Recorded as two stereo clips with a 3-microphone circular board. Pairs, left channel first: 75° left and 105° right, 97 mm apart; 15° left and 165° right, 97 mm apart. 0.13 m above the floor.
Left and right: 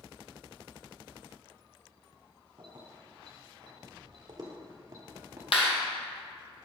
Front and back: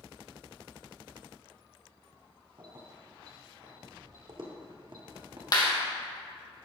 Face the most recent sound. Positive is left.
turn(degrees=60)